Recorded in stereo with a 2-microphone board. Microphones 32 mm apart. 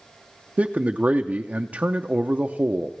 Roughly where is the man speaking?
Right.